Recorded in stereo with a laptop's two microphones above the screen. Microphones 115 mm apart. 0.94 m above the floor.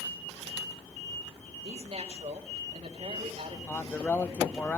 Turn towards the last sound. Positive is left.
turn(degrees=15)  # may be behind; listen again after turning